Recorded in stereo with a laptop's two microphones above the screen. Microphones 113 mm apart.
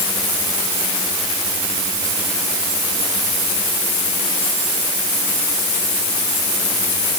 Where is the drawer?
I don't hear a drawer.